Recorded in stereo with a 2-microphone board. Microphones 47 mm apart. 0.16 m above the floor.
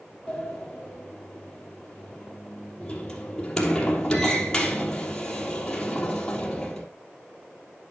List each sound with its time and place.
0.3 s a sliding door: 15° left (ahead or behind), 3 m